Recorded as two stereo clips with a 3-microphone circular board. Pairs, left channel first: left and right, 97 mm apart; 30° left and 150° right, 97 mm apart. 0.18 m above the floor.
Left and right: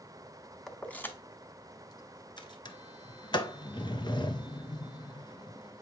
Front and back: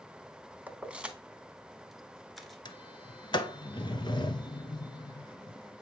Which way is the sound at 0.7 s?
170° left.